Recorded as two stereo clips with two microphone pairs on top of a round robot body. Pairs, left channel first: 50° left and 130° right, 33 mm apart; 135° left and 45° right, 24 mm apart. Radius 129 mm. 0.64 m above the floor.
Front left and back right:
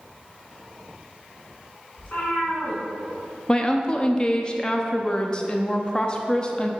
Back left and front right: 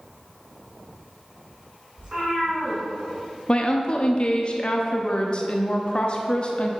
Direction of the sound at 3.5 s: 100° left.